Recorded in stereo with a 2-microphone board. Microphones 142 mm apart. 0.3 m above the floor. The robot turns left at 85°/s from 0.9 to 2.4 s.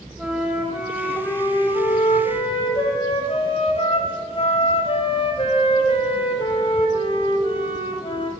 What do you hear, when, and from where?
0.2 s a flute: 170° right, 1.4 m; by 8.3 s 60° left, 1.4 m